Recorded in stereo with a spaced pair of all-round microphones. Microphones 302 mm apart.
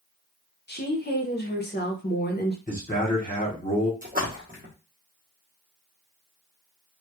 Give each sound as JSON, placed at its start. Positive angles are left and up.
{"t": 0.7, "sound": "a woman speaking", "side_deg": 35, "distance_m": 0.6}
{"t": 2.7, "sound": "a man speaking", "side_deg": 25, "distance_m": 1.0}
{"t": 4.0, "sound": "a splash", "side_deg": -30, "distance_m": 0.9}